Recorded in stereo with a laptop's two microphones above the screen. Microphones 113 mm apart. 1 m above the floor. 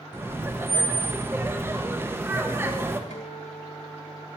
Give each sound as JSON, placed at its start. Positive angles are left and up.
{"t": 0.1, "sound": "laughter", "side_deg": -20, "distance_m": 0.8}
{"t": 3.1, "sound": "a guitar", "side_deg": 70, "distance_m": 1.4}